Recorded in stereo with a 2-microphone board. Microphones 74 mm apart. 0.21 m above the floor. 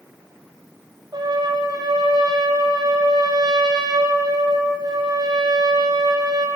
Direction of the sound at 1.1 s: 75° right (ahead or behind).